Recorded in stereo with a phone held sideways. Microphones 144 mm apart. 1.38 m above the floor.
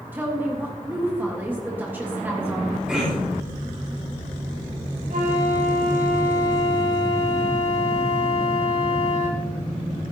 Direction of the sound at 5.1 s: 70° right (ahead or behind).